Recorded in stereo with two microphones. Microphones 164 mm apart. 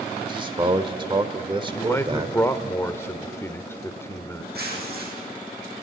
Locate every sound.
0.2 s a man speaking: 30° right (ahead or behind), 1.0 m
1.7 s a man speaking: 15° left (ahead or behind), 0.8 m
4.5 s tearing paper: 75° right (ahead or behind), 6 m